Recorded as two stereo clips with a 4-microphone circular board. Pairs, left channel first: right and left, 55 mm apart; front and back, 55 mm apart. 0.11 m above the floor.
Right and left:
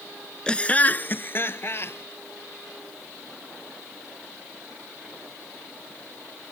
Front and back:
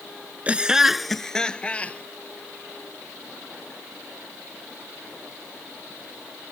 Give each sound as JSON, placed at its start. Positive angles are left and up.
{"t": 0.5, "sound": "laughter", "azimuth_deg": -145}